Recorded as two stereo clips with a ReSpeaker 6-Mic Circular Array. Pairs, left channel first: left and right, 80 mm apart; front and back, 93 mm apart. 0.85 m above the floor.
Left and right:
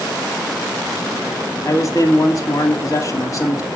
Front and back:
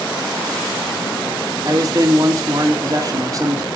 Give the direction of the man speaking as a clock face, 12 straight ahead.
8 o'clock.